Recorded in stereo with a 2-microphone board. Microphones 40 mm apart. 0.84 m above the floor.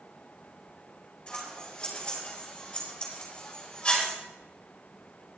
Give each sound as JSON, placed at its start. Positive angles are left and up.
{"t": 1.3, "sound": "scissors", "side_deg": 25, "distance_m": 4.5}